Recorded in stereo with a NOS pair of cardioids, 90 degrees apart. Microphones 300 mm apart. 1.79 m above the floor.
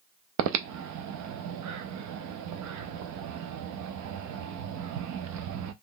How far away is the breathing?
About 0.7 m.